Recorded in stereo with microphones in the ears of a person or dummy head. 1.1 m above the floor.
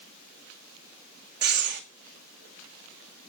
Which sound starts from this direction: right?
Breathing, at 1.4 s.